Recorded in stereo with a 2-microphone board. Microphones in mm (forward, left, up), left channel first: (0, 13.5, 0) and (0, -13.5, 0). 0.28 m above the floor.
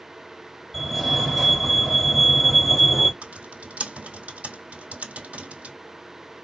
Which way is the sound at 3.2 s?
60° right (ahead or behind).